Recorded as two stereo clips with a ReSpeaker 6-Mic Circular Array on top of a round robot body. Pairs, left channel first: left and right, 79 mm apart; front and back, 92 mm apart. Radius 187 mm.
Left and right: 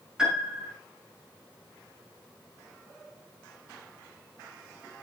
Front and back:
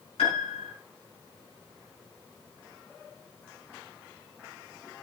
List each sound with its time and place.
0.2 s a piano: 10° right, 5.5 m